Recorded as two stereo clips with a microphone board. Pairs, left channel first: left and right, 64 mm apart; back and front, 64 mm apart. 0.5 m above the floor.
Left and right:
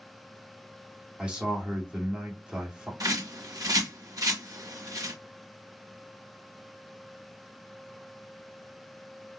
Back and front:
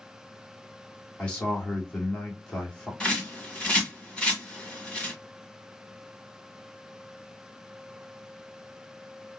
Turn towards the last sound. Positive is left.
turn(degrees=-105)